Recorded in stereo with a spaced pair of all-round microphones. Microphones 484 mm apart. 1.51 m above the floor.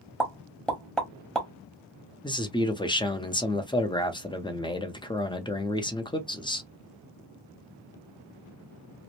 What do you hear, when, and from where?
0.2 s a pop: centre (ahead or behind), 0.9 m
2.2 s a man speaking: 10° left (ahead or behind), 0.6 m